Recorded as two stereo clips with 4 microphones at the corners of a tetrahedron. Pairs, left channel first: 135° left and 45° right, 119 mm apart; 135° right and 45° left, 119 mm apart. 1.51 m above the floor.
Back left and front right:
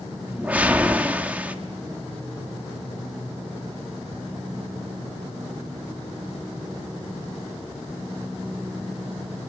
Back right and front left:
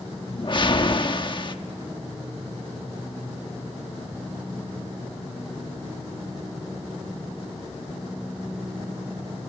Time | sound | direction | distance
0.3 | a whoosh | 120° right | 1.2 m